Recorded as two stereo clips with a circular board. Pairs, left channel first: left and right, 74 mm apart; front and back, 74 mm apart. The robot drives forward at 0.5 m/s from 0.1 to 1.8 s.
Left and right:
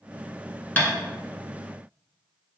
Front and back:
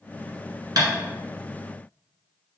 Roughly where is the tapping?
Behind left.